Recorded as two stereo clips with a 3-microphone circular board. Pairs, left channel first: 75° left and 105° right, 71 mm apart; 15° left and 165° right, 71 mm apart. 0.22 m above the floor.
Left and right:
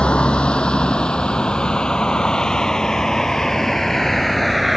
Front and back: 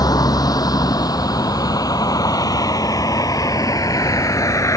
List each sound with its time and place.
0.0 s a vehicle: straight ahead; by 4.8 s 15° right